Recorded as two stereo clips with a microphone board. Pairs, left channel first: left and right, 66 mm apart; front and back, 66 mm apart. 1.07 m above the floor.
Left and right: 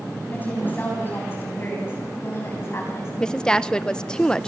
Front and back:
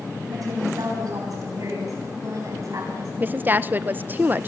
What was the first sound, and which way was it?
A woman speaking, 155° left.